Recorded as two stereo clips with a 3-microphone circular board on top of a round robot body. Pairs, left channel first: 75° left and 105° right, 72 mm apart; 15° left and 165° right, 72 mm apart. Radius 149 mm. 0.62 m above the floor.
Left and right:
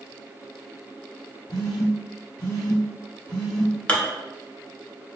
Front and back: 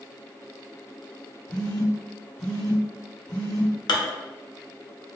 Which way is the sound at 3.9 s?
Straight ahead.